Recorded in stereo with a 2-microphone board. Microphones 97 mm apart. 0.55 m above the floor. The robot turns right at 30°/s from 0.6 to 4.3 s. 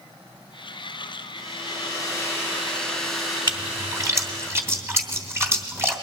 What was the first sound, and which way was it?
A hair dryer, 125° left.